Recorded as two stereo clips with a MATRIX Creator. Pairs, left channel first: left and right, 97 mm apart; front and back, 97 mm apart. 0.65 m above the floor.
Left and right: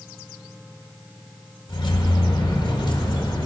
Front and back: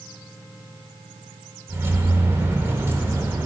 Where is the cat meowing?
No cat meowing in this recording.